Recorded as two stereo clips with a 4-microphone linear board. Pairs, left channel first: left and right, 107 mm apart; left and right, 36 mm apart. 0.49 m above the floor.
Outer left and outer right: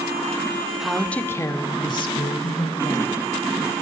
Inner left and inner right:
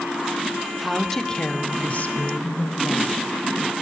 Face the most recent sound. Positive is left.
turn(degrees=70)  # may be behind; listen again after turning